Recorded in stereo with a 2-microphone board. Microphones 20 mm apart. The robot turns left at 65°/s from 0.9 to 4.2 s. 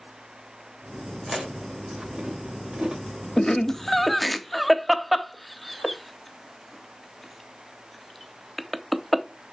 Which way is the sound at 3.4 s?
30° left (ahead or behind).